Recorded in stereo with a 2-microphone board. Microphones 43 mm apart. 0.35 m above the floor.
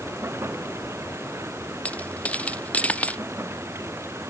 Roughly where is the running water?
Right.